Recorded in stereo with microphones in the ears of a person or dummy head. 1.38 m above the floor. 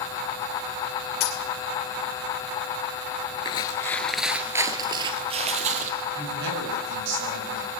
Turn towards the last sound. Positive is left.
turn(degrees=-65)  # may be behind; listen again after turning